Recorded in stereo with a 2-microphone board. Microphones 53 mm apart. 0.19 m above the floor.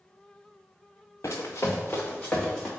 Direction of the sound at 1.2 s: 80° left.